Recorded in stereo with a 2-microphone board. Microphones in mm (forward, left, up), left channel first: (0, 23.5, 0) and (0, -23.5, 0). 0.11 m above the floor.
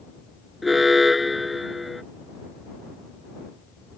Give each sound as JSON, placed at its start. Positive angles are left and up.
{"t": 0.6, "sound": "an alarm", "side_deg": -5}